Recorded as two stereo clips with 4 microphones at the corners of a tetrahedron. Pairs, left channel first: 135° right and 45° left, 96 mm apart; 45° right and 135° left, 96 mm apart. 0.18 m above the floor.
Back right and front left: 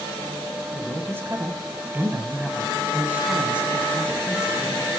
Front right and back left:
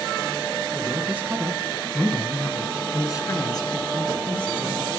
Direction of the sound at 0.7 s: 100° left.